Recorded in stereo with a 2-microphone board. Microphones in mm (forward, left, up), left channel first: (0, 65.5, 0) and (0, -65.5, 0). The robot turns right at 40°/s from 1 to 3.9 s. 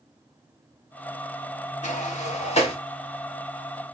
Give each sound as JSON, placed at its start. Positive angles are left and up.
{"t": 1.8, "sound": "a sliding door", "side_deg": 65, "distance_m": 0.7}